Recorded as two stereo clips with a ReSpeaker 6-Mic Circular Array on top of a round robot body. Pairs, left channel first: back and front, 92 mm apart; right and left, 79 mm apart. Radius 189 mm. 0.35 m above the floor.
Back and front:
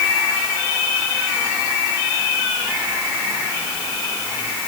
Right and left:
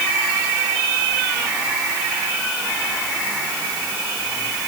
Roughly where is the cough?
I don't hear a cough.